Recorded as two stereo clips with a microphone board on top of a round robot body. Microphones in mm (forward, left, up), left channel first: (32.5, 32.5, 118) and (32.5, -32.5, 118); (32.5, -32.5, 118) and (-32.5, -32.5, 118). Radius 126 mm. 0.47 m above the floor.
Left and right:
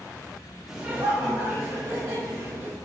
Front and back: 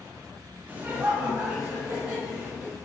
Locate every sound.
0.7 s laughter: 165° right, 0.8 m; by 2.8 s 115° right, 2.5 m